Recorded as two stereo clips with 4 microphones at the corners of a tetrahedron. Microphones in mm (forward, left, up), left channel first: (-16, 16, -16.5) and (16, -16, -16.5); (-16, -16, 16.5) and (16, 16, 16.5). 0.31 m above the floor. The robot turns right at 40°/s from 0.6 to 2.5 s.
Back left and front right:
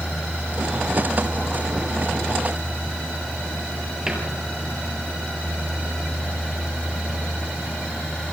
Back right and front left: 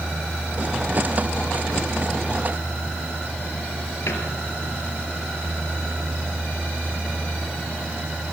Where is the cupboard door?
120° right, 5.5 m.